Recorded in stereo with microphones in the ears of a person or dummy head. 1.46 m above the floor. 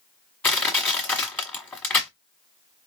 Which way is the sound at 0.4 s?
10° left (ahead or behind).